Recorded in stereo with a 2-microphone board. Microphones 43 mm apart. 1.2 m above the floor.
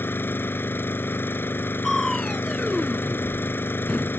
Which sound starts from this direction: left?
An engine running, at 0.0 s.